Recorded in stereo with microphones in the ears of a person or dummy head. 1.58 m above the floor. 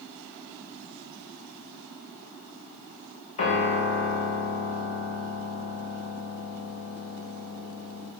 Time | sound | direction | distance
3.4 | a piano | 40° left (ahead or behind) | 3 m